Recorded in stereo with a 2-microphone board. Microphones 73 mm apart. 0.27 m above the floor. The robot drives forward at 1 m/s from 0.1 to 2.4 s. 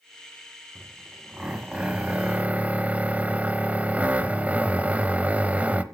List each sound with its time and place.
0.8 s a drill: 10° right (ahead or behind), 2 m; by 5.8 s 20° right (ahead or behind), 1.1 m